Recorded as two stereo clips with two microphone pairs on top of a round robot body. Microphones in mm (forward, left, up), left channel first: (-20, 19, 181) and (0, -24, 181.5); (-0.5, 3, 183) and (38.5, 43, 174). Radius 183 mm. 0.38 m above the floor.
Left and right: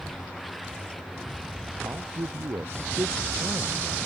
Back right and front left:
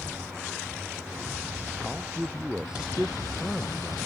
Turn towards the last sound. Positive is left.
turn(degrees=-35)